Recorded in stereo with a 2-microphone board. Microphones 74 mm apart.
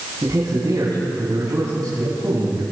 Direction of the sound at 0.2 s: 60° right (ahead or behind).